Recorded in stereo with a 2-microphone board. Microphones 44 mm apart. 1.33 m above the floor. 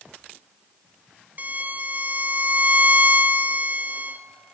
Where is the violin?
40° right (ahead or behind), 0.6 m.